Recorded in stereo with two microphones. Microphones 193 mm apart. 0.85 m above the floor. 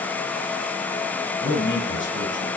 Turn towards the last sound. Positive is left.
turn(degrees=80)